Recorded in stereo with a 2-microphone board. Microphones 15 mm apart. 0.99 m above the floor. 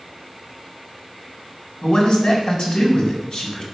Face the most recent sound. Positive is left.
turn(degrees=70)  # may be behind; listen again after turning